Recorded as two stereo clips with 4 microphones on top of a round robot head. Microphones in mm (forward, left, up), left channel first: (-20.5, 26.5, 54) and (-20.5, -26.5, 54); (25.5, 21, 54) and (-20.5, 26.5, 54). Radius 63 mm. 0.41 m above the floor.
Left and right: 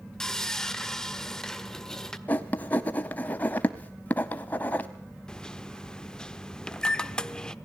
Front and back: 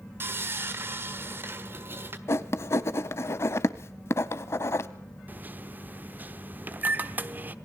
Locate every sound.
0.2 s sawing: 165° left, 1.6 m
2.3 s writing: 25° left, 0.7 m
5.3 s a microwave: 160° left, 1.0 m